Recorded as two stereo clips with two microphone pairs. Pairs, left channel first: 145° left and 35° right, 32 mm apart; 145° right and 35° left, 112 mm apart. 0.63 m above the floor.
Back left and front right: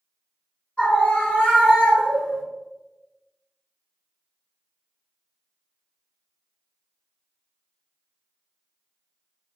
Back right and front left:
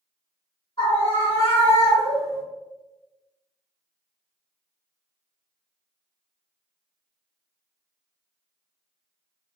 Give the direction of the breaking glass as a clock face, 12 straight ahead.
No breaking glass in this recording.